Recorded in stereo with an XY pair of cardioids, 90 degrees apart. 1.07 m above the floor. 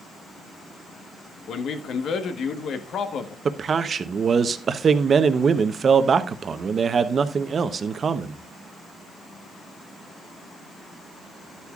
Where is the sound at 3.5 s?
50° right, 0.9 m.